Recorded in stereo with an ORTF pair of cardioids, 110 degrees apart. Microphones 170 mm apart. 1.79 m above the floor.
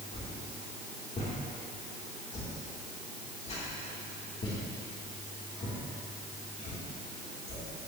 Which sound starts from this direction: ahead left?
A whoosh, at 0.1 s.